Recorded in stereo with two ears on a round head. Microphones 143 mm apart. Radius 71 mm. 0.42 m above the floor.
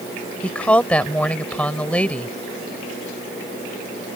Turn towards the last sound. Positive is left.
turn(degrees=10)  # may be behind; listen again after turning